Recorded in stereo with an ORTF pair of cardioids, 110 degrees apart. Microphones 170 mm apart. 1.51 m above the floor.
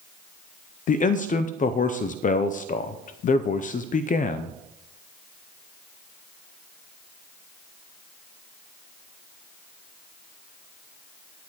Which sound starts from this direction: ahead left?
A man speaking, at 0.9 s.